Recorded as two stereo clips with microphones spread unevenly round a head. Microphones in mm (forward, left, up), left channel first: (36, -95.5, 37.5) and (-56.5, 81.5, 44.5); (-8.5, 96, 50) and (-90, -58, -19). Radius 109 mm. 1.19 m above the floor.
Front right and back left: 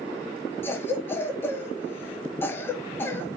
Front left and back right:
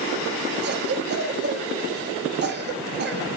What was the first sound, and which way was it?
A cough, 140° right.